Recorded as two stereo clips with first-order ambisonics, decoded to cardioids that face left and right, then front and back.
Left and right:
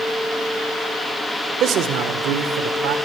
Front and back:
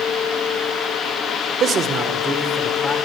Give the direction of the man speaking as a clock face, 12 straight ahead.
4 o'clock.